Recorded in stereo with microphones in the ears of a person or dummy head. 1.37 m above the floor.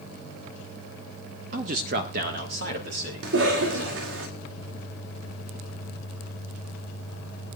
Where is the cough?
80° right, 2 m.